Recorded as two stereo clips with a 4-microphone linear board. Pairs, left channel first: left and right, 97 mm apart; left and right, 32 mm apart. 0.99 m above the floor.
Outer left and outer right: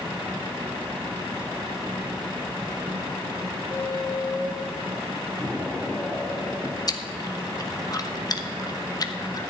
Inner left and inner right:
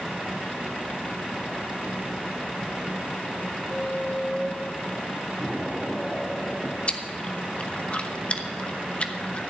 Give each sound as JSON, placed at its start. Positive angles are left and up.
{"t": 3.7, "sound": "a squeak", "side_deg": 70, "distance_m": 5.5}
{"t": 5.4, "sound": "an explosion", "side_deg": 10, "distance_m": 2.5}
{"t": 6.9, "sound": "chewing", "side_deg": 40, "distance_m": 1.0}